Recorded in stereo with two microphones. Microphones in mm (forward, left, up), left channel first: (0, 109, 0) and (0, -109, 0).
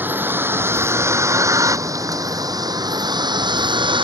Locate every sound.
0.0 s a vehicle: 10° right (ahead or behind); by 4.0 s 20° right (ahead or behind)